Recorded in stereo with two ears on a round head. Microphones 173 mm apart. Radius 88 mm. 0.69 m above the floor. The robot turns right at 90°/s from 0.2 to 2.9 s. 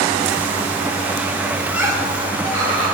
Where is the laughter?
175° left, 1.9 m; by 3.0 s 70° right, 1.9 m.